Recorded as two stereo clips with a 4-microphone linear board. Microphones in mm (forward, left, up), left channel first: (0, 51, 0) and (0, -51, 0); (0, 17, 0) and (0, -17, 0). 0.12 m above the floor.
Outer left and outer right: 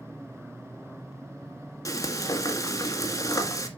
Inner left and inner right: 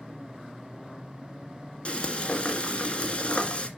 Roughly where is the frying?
Left.